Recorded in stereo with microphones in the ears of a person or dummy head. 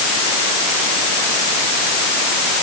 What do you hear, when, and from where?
Only background noise.